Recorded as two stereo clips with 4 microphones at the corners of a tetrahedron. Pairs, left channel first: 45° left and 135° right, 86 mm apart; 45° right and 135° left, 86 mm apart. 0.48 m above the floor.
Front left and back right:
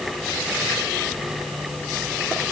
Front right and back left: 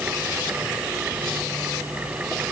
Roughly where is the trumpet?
No trumpet in this recording.